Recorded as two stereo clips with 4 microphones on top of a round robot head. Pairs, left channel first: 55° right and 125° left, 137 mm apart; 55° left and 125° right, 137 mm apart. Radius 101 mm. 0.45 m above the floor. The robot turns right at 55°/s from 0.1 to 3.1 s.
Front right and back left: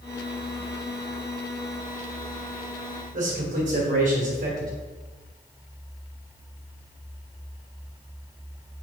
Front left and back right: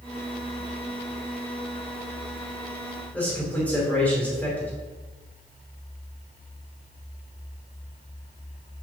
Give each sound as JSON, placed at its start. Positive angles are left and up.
{"t": 3.1, "sound": "a man speaking", "azimuth_deg": 140, "distance_m": 3.0}